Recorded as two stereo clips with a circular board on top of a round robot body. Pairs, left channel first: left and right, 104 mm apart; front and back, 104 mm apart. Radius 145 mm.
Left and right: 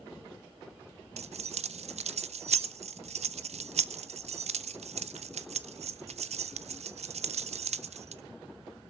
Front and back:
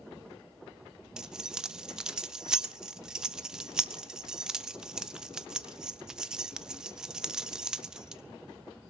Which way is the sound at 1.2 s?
95° right.